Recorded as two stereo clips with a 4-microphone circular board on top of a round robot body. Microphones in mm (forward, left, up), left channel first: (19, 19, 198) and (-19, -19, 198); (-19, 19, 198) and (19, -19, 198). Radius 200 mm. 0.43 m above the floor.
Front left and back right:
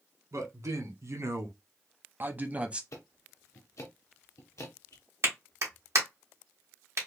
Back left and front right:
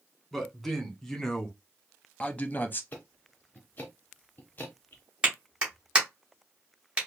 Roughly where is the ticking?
Left.